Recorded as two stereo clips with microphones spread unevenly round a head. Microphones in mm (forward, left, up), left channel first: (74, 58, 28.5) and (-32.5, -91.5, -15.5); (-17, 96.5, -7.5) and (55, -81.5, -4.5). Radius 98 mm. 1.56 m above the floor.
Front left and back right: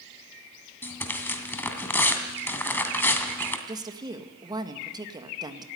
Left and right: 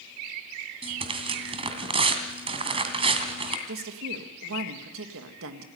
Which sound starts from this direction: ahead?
Tearing paper, at 0.8 s.